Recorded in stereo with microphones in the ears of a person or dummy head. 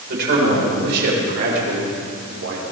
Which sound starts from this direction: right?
A man speaking, at 0.1 s.